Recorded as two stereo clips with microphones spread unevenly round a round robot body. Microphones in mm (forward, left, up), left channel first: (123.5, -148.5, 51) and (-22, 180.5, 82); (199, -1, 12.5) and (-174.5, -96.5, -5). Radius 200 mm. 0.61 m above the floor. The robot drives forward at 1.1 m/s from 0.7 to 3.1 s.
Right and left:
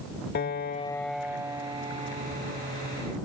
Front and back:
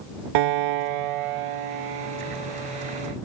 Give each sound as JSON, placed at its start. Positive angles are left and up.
{"t": 0.3, "sound": "a piano", "azimuth_deg": -135}